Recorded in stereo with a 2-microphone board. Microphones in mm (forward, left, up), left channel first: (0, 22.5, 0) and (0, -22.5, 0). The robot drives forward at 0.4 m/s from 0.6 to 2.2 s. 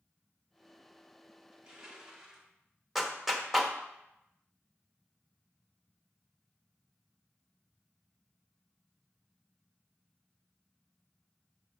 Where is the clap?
5° right (ahead or behind), 1.0 m.